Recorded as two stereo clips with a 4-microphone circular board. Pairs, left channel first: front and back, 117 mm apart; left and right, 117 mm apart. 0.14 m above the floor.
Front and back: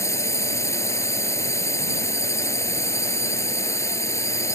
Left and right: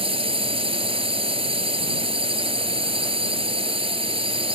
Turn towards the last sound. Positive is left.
turn(degrees=-60)